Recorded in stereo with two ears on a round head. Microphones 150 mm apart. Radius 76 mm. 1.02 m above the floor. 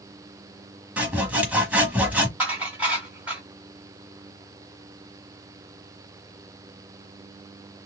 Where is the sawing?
10° right (ahead or behind), 1.1 m.